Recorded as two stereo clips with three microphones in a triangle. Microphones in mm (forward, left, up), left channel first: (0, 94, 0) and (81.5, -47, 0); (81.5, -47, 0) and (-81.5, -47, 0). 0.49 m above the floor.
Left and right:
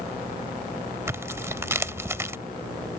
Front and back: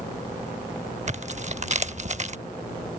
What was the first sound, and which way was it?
Tearing paper, 135° right.